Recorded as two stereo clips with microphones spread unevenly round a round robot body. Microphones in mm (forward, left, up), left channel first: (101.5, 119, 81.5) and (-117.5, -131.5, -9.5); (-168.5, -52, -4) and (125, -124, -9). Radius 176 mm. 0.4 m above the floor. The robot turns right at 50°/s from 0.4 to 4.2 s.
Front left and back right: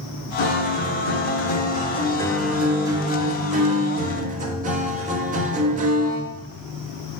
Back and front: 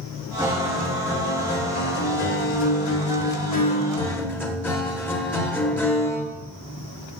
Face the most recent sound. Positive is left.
turn(degrees=-115)